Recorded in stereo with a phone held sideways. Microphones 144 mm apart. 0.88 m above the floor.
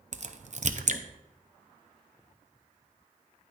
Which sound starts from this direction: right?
A crack, at 0.1 s.